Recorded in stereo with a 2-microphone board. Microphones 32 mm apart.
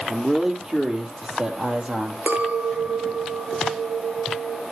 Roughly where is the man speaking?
Centre.